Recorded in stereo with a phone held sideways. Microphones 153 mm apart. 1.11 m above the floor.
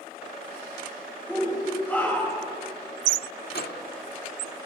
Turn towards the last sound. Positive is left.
turn(degrees=85)